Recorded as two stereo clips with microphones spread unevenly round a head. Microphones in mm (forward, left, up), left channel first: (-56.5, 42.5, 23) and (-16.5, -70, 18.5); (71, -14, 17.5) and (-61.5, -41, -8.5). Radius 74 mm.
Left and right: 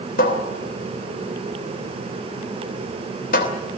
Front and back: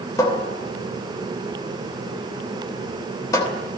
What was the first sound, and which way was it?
A cupboard door, 85° left.